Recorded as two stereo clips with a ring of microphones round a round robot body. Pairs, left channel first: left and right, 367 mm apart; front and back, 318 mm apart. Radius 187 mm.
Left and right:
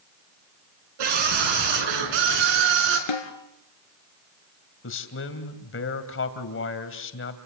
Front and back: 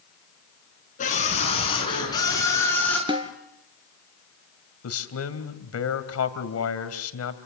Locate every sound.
1.0 s a scream: 70° right, 6 m; by 3.0 s 85° right, 6.5 m
3.1 s a snare drum: 105° left, 2.5 m
4.8 s a man speaking: 35° left, 2.5 m